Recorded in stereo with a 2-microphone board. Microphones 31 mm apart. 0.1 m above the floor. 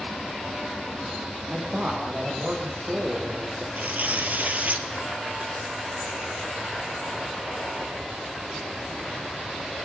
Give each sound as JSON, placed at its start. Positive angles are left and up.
{"t": 1.5, "sound": "a man speaking", "side_deg": -45, "distance_m": 6.0}
{"t": 3.8, "sound": "tearing paper", "side_deg": -55, "distance_m": 3.0}